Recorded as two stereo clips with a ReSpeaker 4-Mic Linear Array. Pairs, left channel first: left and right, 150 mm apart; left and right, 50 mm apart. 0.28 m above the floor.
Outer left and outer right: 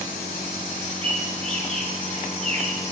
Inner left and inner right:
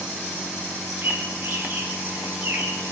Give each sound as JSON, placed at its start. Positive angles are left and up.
{"t": 1.0, "sound": "a bird", "side_deg": -40, "distance_m": 6.5}